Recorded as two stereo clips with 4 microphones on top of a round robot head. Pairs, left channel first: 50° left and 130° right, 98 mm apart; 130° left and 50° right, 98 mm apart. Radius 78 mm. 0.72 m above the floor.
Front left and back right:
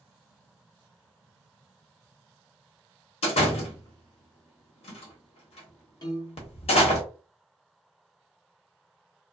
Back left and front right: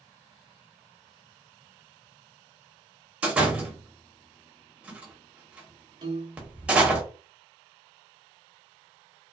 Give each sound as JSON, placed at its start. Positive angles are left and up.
{"t": 3.2, "sound": "a door slam", "azimuth_deg": 30, "distance_m": 1.0}
{"t": 6.0, "sound": "a piano", "azimuth_deg": 0, "distance_m": 0.9}